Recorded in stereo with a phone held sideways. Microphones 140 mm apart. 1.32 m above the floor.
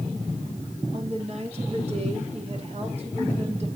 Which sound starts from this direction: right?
A woman speaking, at 0.9 s.